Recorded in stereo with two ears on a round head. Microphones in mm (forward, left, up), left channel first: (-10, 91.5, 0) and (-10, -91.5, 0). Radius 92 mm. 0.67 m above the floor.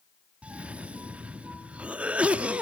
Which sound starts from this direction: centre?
A cough, at 0.4 s.